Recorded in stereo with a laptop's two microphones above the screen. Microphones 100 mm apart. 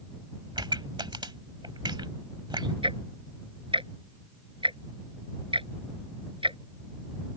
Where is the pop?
55° right (ahead or behind).